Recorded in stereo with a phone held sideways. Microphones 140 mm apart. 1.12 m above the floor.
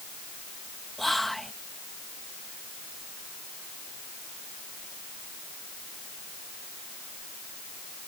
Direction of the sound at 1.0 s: Centre (ahead or behind).